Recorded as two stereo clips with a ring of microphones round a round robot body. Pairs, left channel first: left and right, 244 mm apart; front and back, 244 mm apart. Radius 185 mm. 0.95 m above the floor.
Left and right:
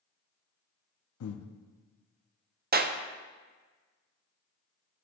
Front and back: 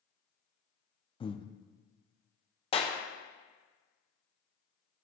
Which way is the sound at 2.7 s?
60° right.